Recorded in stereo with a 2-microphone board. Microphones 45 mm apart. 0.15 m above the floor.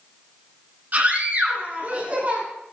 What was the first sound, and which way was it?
A scream, 40° right (ahead or behind).